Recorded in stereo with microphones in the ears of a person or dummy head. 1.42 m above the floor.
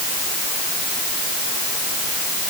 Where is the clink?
No clink in this recording.